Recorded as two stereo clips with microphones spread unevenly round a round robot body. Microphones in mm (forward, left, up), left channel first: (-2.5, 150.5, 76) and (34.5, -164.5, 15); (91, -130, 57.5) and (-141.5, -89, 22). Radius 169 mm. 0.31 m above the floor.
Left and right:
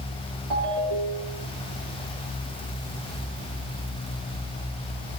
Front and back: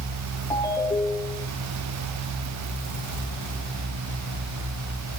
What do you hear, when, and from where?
0.5 s a ringtone: 85° right, 6.5 m